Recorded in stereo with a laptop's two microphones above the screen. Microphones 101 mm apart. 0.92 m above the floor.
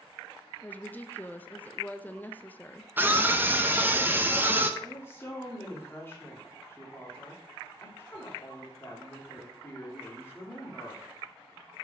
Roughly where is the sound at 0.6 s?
Centre.